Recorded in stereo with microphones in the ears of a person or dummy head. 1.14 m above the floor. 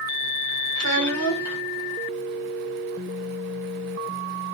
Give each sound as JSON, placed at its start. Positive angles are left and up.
{"t": 0.8, "sound": "a child speaking", "side_deg": -75, "distance_m": 0.7}